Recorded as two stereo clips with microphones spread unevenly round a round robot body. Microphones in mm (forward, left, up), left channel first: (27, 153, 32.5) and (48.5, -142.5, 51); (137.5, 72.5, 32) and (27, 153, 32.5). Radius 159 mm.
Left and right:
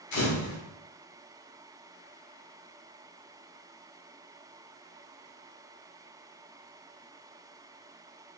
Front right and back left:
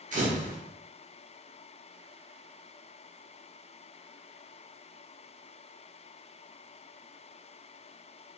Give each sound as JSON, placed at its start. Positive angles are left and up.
{"t": 0.1, "sound": "a camera shutter", "azimuth_deg": 120, "distance_m": 1.1}